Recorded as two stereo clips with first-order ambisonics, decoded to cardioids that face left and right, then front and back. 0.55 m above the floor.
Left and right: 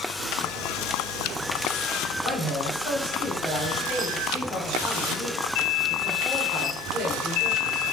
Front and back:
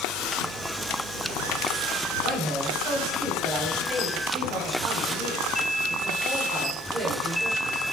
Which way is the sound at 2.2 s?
150° left.